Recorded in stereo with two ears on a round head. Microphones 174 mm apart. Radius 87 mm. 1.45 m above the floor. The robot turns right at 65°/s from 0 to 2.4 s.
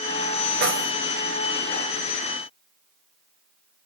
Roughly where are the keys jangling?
Right.